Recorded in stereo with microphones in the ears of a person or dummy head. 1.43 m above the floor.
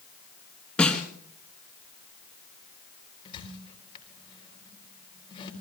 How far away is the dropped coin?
I don't hear a dropped coin.